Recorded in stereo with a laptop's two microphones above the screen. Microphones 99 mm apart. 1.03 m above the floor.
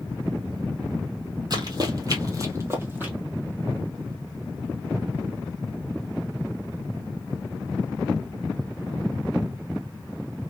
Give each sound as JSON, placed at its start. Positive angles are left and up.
{"t": 1.5, "sound": "running footsteps", "side_deg": -45, "distance_m": 1.5}